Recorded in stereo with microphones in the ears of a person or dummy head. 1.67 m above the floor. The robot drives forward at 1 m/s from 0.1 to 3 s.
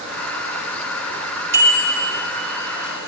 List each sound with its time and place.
1.5 s a bicycle bell: 20° right (ahead or behind), 2.5 m; by 2.2 s 30° right (ahead or behind), 2 m